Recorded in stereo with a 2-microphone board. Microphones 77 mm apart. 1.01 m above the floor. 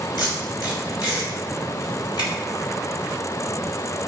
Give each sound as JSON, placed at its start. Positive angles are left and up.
{"t": 0.2, "sound": "tape being pulled", "side_deg": 70, "distance_m": 4.0}